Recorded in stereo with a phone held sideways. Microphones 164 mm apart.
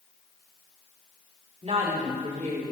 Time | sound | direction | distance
1.6 | a woman speaking | 45° right (ahead or behind) | 2.5 m